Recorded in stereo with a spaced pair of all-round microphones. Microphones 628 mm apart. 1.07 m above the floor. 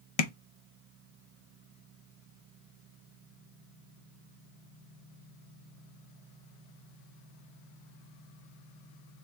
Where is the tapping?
65° left (ahead or behind), 0.6 m.